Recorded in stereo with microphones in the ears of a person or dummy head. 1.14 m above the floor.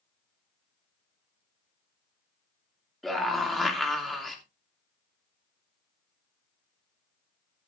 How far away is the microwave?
I don't hear a microwave.